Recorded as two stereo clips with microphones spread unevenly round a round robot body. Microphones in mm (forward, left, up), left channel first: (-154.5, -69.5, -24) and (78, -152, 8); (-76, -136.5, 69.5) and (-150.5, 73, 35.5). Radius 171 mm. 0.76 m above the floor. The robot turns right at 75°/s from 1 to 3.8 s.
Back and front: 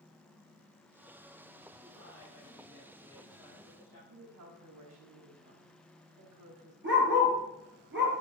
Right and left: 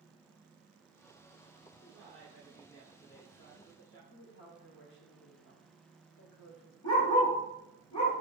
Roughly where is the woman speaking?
Ahead right.